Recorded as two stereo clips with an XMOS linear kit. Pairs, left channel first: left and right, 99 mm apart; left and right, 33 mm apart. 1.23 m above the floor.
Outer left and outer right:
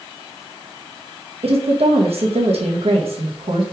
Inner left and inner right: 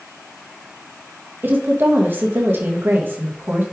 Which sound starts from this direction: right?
A woman speaking, at 1.4 s.